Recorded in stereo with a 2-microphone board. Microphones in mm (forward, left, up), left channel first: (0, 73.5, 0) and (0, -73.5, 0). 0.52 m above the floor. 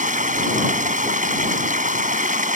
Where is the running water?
55° right (ahead or behind).